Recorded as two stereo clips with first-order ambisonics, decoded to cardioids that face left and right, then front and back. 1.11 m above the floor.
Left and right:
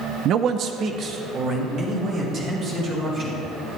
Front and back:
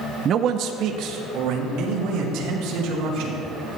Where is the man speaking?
130° right, 0.6 m; by 3.4 s 150° right, 5 m.